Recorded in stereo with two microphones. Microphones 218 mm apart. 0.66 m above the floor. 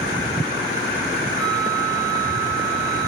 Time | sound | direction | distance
1.4 | a flute | 60° left (ahead or behind) | 6.5 m